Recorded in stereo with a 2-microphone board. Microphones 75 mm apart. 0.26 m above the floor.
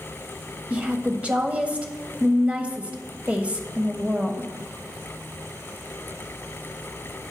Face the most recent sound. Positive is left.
turn(degrees=-20)  # may be behind; listen again after turning